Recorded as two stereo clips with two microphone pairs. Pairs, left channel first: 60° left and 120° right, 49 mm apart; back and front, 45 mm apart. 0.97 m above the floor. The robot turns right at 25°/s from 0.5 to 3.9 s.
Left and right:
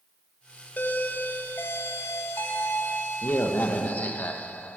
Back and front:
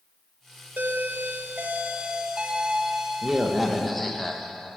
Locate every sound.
0.8 s a doorbell: 15° left, 0.8 m; by 4.8 s 95° left, 0.8 m